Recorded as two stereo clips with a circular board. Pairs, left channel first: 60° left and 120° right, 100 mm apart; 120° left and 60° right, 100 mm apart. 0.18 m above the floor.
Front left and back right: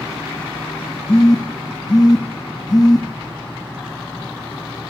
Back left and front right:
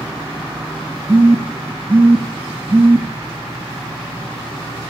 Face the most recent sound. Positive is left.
turn(degrees=10)